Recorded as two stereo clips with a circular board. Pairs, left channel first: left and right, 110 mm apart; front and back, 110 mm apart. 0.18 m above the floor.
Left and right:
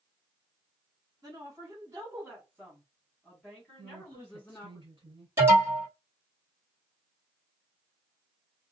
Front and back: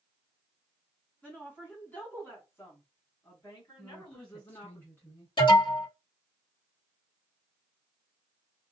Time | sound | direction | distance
1.2 | a woman speaking | 70° right | 1.9 m
3.8 | a woman speaking | 70° right | 1.9 m
5.4 | an alarm | 25° right | 2.5 m